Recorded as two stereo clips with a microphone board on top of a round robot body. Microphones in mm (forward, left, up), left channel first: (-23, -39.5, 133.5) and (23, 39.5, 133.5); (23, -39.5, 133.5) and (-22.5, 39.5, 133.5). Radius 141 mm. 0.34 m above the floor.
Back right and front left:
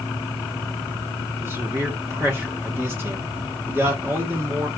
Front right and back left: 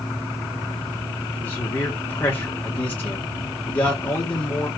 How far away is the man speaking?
About 1.6 m.